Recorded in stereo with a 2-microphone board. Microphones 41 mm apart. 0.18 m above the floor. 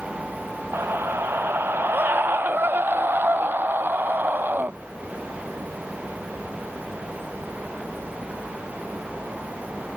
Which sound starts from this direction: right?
A scream, at 0.7 s.